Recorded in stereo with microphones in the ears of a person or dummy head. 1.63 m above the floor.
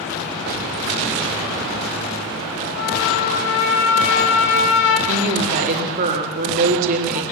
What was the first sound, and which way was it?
A trumpet, 75° left (ahead or behind).